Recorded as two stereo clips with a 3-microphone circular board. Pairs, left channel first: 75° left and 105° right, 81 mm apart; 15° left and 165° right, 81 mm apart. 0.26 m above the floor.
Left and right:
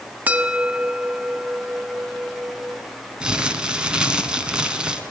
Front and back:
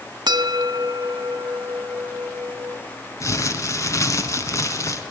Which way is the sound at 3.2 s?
30° right.